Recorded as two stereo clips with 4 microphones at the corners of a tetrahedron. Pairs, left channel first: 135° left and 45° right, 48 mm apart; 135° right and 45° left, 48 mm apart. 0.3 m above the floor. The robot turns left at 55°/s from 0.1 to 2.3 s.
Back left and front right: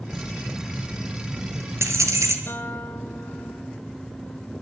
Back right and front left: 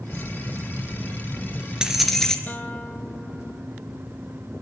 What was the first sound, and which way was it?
Keys jangling, 65° left.